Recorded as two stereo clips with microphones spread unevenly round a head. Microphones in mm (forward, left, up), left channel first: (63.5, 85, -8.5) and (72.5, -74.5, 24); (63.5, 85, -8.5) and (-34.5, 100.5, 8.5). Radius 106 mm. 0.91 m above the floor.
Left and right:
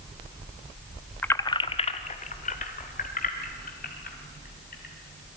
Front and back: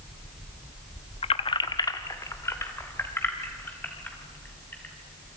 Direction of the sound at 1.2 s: 10° left.